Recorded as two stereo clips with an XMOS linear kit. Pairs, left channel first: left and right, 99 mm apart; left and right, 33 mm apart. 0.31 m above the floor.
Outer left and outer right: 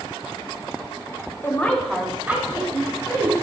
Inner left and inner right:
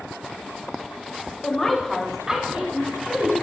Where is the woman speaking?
25° left (ahead or behind), 1.1 m; by 3.3 s 35° right (ahead or behind), 2.5 m.